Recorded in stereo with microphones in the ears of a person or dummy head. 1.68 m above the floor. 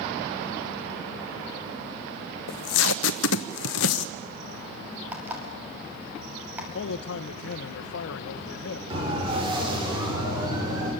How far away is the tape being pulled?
About 1.0 m.